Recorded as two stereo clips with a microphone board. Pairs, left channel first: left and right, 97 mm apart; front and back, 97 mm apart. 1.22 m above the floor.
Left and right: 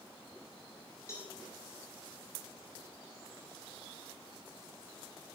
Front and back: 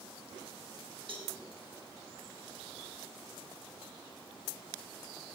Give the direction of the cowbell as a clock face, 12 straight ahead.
7 o'clock.